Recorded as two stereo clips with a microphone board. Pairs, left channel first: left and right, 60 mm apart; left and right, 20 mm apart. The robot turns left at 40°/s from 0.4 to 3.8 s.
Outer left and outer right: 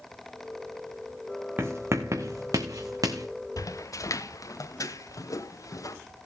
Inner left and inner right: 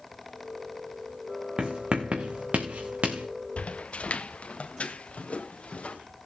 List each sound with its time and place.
1.6 s writing: 40° right (ahead or behind), 1.6 m; by 3.3 s 70° right (ahead or behind), 1.6 m
3.6 s footsteps: 75° left (ahead or behind), 0.7 m; by 6.0 s 70° left (ahead or behind), 1.9 m